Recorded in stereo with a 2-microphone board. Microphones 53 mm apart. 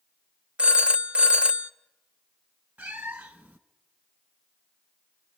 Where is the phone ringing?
20° right (ahead or behind), 0.5 m.